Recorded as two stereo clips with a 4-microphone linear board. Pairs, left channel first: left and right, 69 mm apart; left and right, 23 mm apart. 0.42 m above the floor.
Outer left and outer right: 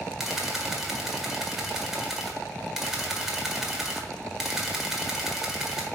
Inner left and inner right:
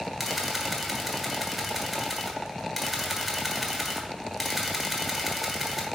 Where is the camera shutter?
5° right (ahead or behind), 1.4 m.